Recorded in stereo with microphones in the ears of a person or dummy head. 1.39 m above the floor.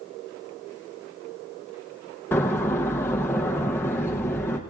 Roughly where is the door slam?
Centre.